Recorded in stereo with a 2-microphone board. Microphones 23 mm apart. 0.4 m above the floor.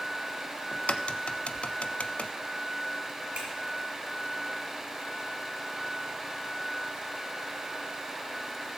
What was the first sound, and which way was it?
A crack, 60° left (ahead or behind).